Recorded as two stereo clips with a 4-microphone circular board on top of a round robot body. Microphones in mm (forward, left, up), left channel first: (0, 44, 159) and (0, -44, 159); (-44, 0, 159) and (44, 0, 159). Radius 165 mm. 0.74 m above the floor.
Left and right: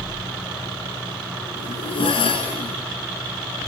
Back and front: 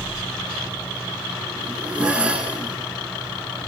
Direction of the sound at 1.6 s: 80° left.